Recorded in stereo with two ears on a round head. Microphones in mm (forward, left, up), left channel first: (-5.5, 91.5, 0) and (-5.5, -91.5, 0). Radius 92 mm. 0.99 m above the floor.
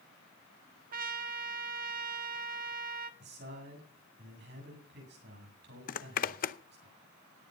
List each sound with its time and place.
0.9 s a trumpet: 45° right (ahead or behind), 1.4 m
3.2 s a man speaking: 55° right (ahead or behind), 8.5 m
5.9 s a zipper: 40° left (ahead or behind), 0.7 m